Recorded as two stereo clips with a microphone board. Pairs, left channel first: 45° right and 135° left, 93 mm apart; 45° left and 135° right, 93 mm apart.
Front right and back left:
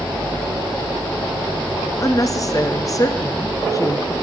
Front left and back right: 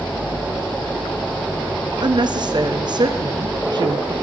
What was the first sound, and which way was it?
A woman speaking, 95° right.